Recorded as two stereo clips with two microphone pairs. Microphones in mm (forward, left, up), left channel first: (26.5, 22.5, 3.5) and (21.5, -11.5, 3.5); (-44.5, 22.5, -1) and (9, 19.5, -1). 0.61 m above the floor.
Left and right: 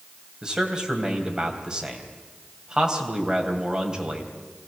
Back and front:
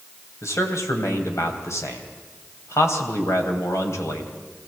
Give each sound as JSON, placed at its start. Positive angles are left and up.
{"t": 0.4, "sound": "a man speaking", "azimuth_deg": -165, "distance_m": 3.0}